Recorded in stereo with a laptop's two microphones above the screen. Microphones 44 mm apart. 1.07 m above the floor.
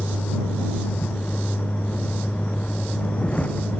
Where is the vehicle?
40° left (ahead or behind); by 3.8 s 30° left (ahead or behind).